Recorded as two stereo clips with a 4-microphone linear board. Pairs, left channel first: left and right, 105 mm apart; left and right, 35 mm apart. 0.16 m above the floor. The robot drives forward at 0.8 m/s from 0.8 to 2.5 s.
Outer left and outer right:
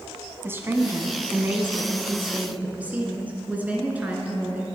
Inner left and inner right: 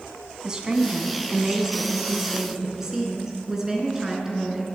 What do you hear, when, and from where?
0.4 s a woman speaking: 25° right (ahead or behind), 1.2 m; by 4.7 s 15° right (ahead or behind), 1.9 m